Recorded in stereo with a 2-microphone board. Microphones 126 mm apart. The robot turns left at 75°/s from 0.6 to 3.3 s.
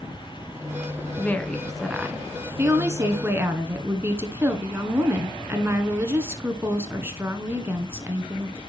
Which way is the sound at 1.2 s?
15° left (ahead or behind).